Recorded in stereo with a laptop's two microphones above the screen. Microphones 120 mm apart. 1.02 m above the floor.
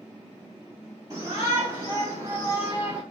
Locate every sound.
1.1 s a shout: 35° right (ahead or behind), 1.8 m; by 3.0 s 10° right (ahead or behind), 1.0 m